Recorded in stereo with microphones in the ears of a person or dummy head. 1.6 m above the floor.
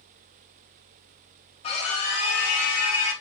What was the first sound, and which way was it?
A scream, 35° left (ahead or behind).